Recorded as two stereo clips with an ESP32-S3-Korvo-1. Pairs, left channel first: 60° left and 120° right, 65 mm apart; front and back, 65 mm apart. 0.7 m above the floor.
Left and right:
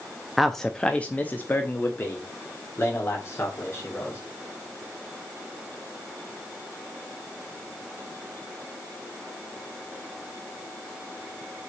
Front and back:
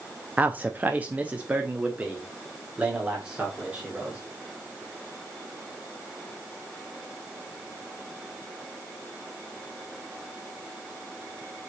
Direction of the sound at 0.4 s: 150° left.